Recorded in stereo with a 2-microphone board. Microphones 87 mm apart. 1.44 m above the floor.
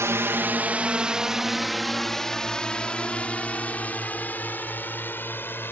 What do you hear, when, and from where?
0.0 s a drone: 35° right (ahead or behind); by 5.7 s 25° left (ahead or behind)